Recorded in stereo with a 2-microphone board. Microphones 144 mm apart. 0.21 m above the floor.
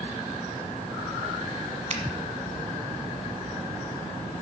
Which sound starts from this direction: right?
A finger snap, at 1.9 s.